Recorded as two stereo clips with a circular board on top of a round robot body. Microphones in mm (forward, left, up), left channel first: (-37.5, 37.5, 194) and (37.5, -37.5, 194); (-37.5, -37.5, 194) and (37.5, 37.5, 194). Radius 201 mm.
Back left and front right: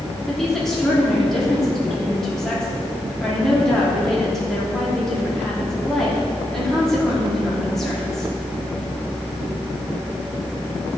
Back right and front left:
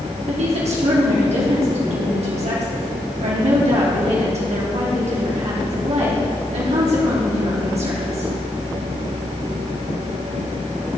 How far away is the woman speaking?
About 3.5 m.